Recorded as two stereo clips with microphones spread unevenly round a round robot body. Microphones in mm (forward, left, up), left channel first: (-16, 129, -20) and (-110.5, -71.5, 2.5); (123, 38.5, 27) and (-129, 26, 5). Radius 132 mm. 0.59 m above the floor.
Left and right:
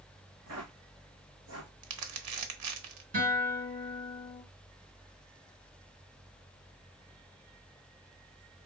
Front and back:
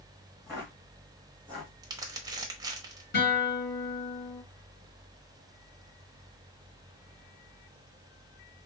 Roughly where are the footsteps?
Right.